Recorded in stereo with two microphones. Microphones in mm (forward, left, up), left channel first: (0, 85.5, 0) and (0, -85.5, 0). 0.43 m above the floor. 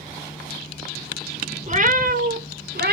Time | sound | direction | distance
1.7 | a cat meowing | 45° right (ahead or behind) | 1.0 m